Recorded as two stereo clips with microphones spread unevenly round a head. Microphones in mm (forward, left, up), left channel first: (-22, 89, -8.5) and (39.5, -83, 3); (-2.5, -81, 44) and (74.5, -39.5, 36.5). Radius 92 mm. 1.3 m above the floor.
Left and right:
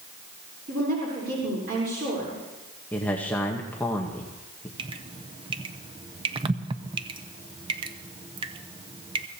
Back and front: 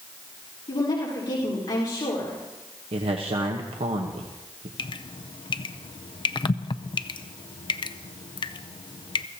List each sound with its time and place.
0.7 s a woman speaking: 115° right, 4 m
2.9 s a man speaking: 30° left, 1.1 m
4.8 s dripping: 135° right, 0.6 m